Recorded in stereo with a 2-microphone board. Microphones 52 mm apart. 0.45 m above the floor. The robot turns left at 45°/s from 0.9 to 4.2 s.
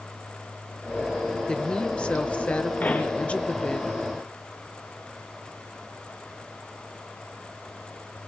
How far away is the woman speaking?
About 0.9 m.